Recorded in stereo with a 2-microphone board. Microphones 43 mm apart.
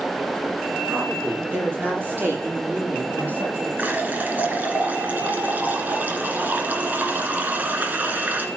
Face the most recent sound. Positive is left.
turn(degrees=-40)  # may be behind; listen again after turning